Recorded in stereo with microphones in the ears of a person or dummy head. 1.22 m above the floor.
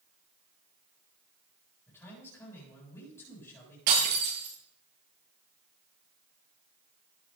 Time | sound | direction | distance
1.9 | a man speaking | 15° left (ahead or behind) | 8 m
3.9 | breaking glass | 55° right (ahead or behind) | 10 m